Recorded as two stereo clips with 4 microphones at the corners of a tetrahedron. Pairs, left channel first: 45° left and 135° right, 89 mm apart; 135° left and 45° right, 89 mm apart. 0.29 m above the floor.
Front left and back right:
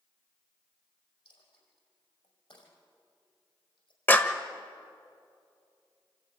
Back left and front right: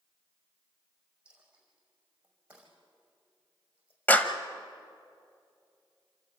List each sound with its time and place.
1.2 s a dropped coin: 30° left, 5.5 m
4.1 s a clap: 90° left, 1.1 m